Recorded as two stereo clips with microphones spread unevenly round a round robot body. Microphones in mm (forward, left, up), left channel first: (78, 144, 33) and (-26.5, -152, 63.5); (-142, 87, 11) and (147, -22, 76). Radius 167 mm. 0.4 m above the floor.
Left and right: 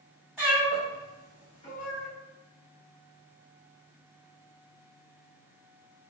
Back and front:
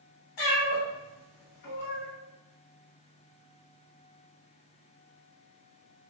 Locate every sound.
0.4 s a cat meowing: 165° left, 1.4 m; by 2.1 s 125° left, 1.0 m